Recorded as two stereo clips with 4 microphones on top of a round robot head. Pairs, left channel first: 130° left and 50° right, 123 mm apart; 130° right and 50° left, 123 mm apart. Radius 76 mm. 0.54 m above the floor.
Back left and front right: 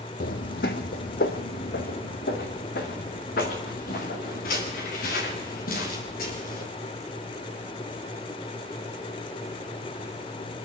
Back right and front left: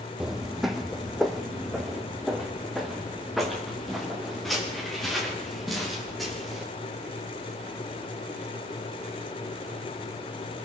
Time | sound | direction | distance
0.2 | footsteps | 140° left | 1.0 m